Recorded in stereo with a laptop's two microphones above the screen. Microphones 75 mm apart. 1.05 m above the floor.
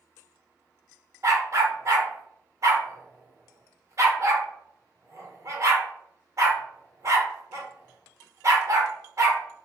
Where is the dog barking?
45° right (ahead or behind), 0.9 m.